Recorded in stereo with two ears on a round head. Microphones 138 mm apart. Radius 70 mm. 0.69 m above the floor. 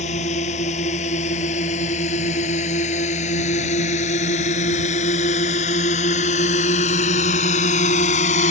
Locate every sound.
0.0 s a drone: 45° left (ahead or behind)